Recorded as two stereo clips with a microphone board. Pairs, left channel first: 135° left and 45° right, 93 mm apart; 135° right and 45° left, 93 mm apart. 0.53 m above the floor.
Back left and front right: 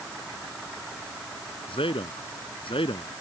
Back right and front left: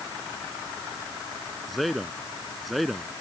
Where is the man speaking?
135° left.